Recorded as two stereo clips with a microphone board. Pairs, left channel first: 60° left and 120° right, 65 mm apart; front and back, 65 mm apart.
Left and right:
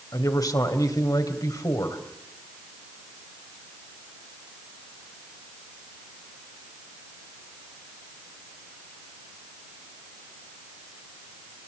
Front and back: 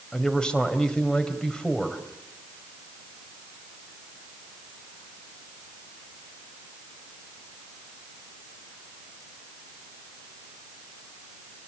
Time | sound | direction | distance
0.1 | a man speaking | 75° left | 3.5 m